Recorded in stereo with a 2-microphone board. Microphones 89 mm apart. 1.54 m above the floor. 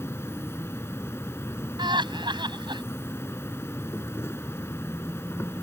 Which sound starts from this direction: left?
An insect, at 0.0 s.